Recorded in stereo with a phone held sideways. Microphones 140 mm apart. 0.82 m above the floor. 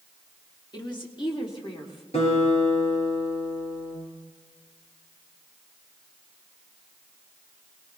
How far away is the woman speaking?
About 1.8 m.